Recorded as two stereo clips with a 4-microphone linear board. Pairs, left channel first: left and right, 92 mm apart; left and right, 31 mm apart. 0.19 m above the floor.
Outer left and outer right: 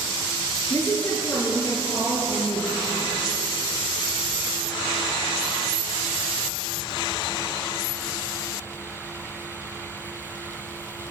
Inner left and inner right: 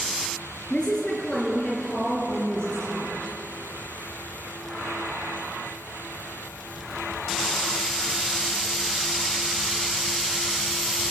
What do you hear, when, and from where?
0.7 s a woman speaking: 30° left (ahead or behind), 4 m